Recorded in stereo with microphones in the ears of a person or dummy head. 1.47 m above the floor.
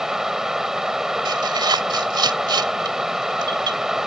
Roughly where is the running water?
Centre.